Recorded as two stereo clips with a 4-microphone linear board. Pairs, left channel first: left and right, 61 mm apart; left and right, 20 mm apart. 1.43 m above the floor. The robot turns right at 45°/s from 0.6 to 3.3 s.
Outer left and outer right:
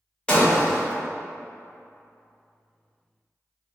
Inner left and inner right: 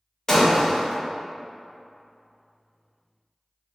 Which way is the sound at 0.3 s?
15° left (ahead or behind).